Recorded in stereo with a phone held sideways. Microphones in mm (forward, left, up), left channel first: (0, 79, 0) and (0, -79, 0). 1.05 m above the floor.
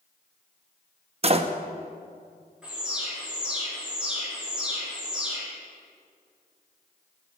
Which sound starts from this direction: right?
A door slam, at 1.2 s.